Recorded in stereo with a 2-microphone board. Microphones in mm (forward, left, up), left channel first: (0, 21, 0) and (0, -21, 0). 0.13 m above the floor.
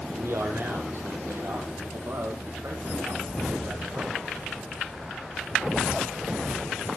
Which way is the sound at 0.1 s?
65° right (ahead or behind).